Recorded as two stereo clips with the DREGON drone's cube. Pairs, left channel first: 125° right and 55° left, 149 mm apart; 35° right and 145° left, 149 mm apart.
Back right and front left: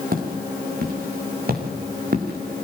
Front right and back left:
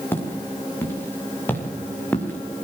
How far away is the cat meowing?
No cat meowing in this recording.